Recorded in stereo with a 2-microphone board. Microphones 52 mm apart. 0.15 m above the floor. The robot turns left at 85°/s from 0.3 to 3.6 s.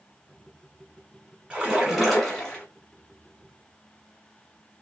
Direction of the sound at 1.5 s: 20° right (ahead or behind).